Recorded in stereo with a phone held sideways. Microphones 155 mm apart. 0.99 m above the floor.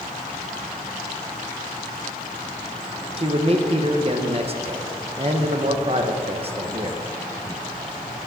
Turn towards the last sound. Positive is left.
turn(degrees=-40)  # may be behind; listen again after turning